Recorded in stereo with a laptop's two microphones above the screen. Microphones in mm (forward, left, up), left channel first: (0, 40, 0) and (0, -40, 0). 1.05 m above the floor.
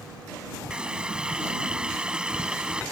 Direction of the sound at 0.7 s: 10° right (ahead or behind).